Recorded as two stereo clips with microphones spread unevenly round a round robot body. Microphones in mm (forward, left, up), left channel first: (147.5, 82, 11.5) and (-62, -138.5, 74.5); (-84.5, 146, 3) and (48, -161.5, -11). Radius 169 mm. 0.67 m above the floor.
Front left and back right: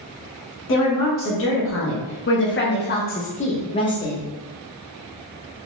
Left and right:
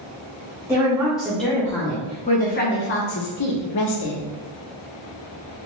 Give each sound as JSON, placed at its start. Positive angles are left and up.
{"t": 0.7, "sound": "a woman speaking", "azimuth_deg": 15, "distance_m": 1.5}